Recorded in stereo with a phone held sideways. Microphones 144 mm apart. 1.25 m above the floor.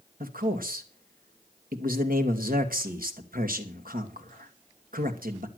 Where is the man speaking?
75° right (ahead or behind), 2.5 m.